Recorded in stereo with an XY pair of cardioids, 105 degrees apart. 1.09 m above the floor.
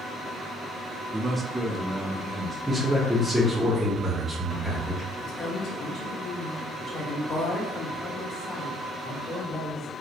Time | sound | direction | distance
1.1 | a man speaking | 30° right | 0.5 m
2.7 | a man speaking | 5° right | 0.8 m
5.2 | a woman speaking | 60° left | 1.0 m